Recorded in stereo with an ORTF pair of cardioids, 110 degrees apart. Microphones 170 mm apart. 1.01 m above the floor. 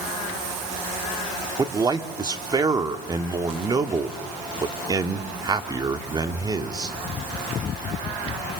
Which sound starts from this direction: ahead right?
A man speaking, at 1.6 s.